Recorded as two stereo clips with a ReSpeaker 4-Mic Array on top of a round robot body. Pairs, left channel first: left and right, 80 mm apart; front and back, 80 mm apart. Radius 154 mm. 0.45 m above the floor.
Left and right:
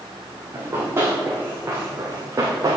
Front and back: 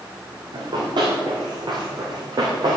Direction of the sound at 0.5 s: 155° right.